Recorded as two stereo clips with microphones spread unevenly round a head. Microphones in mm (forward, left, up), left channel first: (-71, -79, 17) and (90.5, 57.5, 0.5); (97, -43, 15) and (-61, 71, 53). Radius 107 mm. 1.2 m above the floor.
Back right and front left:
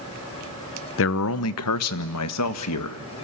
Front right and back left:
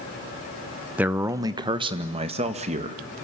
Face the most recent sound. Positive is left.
turn(degrees=-155)